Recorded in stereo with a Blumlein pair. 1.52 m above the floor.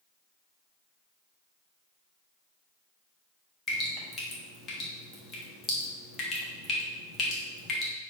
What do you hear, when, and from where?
3.7 s dripping: 20° left, 1.2 m